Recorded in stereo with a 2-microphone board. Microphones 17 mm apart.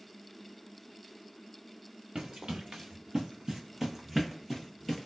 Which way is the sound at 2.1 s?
80° right.